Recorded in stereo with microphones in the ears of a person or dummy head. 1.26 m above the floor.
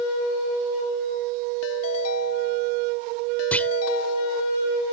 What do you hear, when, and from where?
1.6 s a ringtone: 85° left
3.5 s a clunk: 10° left (ahead or behind)